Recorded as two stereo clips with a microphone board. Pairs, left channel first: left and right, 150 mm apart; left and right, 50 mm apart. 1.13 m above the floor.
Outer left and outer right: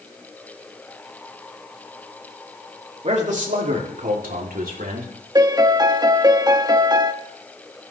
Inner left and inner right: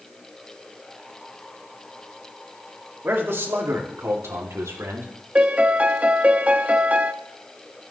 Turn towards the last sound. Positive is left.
turn(degrees=-30)  # may be behind; listen again after turning